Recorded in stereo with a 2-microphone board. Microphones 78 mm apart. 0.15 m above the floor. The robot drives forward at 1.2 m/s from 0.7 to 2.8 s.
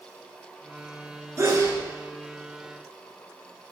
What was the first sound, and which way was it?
A sneeze, 40° right (ahead or behind).